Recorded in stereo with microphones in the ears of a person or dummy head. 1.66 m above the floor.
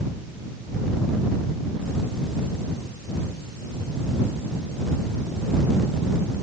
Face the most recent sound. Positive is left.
No sound to turn to.